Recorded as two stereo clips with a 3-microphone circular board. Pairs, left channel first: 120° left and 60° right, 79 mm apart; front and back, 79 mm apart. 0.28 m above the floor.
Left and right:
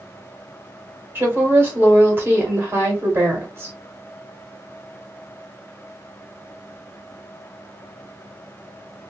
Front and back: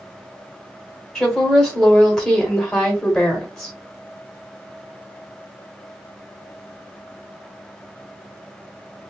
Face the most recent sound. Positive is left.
turn(degrees=-80)